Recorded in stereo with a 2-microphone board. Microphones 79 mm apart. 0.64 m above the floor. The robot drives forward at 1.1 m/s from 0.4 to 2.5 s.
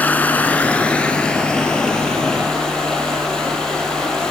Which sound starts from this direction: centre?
Running water, at 0.0 s.